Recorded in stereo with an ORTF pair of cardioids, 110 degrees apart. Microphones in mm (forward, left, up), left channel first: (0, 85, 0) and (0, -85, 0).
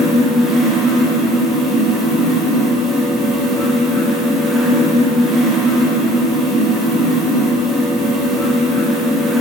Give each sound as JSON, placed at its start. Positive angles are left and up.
{"t": 0.0, "sound": "a fan", "azimuth_deg": 0, "distance_m": 1.1}